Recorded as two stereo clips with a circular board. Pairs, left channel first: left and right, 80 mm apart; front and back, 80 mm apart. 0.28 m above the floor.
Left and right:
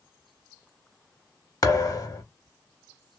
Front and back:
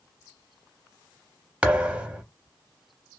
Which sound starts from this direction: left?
A thud, at 1.6 s.